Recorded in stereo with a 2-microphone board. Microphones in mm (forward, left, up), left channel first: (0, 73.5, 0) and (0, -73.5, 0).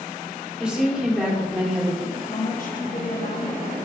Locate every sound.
0.6 s a woman speaking: 5° right (ahead or behind), 2.5 m
2.1 s a woman speaking: 55° left (ahead or behind), 1.5 m